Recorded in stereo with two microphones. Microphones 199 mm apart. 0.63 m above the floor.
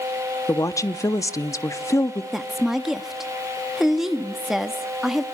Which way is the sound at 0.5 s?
15° left (ahead or behind).